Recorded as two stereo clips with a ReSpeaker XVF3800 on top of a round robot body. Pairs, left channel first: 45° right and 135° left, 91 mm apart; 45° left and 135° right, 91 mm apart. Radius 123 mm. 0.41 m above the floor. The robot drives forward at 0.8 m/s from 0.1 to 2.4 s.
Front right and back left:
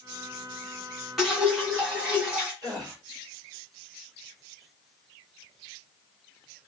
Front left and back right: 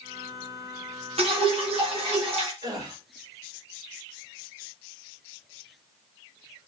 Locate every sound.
1.2 s dripping: 140° right, 1.8 m; by 2.5 s 155° right, 2.5 m
2.6 s a gasp: straight behind, 3.5 m